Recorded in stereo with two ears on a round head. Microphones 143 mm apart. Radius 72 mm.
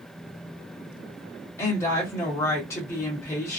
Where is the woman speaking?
20° left (ahead or behind), 1.2 m.